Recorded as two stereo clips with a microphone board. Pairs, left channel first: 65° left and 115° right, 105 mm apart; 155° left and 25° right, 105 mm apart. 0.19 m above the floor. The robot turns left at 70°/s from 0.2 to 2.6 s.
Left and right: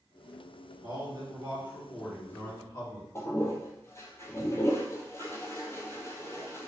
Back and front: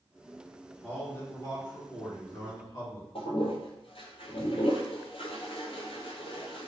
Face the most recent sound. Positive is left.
turn(degrees=130)